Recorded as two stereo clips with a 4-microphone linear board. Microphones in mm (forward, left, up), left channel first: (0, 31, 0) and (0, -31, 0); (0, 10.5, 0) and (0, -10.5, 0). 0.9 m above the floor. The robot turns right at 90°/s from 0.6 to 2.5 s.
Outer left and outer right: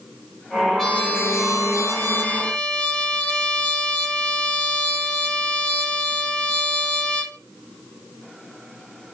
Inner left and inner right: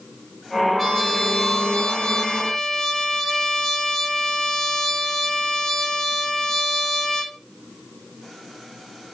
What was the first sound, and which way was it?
A trumpet, 10° left.